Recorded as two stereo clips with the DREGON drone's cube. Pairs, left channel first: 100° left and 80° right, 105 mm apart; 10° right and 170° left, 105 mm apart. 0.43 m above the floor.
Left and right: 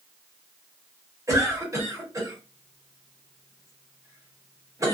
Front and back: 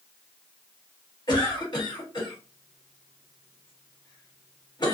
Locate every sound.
1.3 s a cough: 35° right, 1.5 m